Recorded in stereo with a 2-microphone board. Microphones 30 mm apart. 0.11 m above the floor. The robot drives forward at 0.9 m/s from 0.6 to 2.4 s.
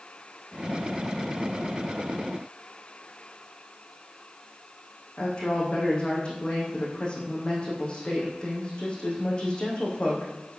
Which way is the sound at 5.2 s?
35° left (ahead or behind).